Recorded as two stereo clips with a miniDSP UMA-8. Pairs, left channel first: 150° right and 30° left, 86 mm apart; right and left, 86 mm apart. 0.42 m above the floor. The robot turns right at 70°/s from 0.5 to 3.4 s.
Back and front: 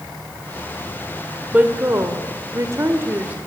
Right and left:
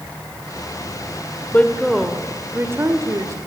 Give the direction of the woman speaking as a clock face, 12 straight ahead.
1 o'clock.